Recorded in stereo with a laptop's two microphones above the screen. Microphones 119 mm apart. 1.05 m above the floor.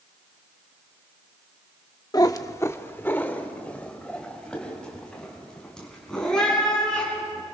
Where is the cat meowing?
30° left (ahead or behind), 0.6 m; by 7.4 s 5° left (ahead or behind), 5 m.